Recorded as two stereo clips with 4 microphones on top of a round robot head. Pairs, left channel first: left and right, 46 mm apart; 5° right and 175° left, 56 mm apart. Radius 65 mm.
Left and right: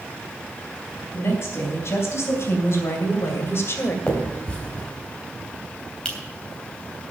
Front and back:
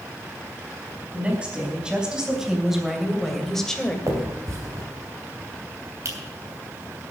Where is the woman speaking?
110° left, 4.5 m; by 4.0 s 70° left, 2.5 m.